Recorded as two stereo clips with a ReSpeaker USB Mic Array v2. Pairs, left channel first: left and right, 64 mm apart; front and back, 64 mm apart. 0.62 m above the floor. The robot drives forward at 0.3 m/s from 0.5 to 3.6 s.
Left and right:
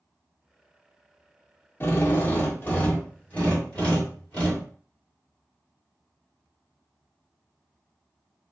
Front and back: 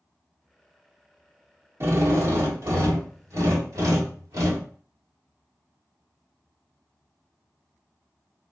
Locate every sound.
1.8 s a drill: 140° left, 0.8 m; by 4.7 s 160° left, 1.3 m